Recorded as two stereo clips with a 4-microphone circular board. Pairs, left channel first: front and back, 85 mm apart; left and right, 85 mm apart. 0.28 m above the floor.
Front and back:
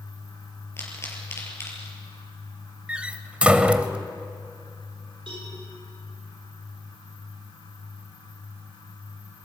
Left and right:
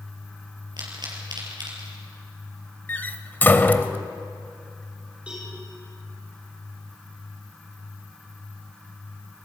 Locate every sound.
0.8 s a pop: 60° right, 5 m
2.9 s a door slam: 120° left, 0.9 m
5.3 s a cowbell: 165° right, 10 m